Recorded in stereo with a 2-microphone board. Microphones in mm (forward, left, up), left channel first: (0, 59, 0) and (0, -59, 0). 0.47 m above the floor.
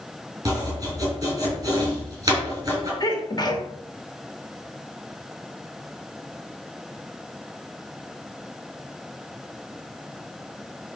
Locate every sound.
0.5 s chopping: 30° right (ahead or behind), 5 m
3.0 s a sneeze: 35° left (ahead or behind), 1.8 m